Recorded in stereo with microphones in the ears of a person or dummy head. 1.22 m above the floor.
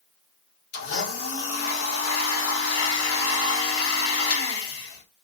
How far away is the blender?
About 3 m.